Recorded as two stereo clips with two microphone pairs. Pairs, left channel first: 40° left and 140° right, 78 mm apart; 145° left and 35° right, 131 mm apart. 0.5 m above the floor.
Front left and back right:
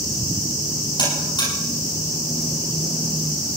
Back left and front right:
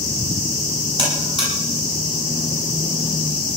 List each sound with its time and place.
1.0 s a buzzer: 15° left, 9 m